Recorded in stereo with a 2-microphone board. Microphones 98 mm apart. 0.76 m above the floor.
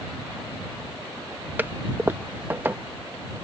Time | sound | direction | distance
1.6 | a toilet flushing | 20° right (ahead or behind) | ?